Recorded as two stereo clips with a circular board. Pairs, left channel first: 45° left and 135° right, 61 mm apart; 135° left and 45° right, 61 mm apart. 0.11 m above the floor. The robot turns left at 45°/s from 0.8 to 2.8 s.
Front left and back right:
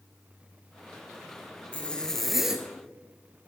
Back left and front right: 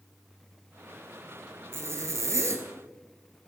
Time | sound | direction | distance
1.7 | a zipper | 20° right | 0.9 m